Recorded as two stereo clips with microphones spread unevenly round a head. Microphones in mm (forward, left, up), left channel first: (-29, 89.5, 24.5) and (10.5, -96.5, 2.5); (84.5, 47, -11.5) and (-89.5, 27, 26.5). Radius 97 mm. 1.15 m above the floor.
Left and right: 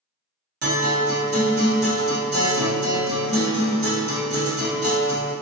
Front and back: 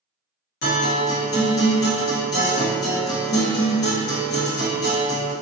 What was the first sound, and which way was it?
A guitar, 35° right.